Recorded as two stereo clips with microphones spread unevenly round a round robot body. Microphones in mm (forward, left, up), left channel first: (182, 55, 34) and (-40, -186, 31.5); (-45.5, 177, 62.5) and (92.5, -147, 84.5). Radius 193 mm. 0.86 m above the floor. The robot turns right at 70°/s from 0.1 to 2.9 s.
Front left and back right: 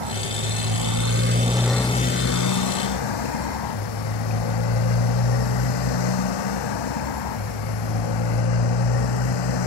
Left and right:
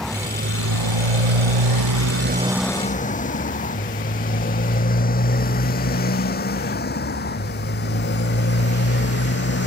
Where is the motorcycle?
160° right; by 9.7 s 50° left.